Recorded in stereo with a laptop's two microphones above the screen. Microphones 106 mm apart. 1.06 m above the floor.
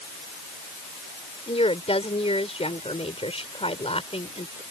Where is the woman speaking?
80° left.